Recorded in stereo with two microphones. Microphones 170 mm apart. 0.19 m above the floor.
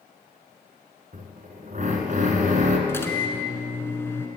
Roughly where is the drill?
Right.